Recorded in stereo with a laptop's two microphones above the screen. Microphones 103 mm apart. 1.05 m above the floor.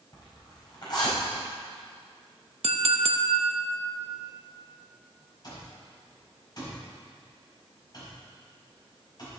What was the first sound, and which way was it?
A zipper, 45° left (ahead or behind).